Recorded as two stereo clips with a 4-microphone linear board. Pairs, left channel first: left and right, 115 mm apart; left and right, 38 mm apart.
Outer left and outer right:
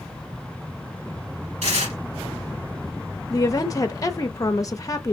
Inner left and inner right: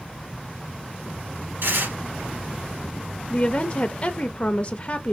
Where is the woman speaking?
30° left (ahead or behind), 0.6 m.